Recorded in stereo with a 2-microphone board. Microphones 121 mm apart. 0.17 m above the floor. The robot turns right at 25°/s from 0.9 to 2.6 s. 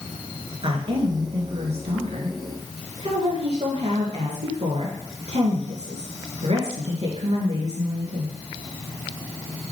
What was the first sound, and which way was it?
A woman speaking, 125° right.